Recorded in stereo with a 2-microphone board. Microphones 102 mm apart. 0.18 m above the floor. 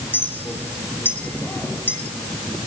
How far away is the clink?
About 2.5 m.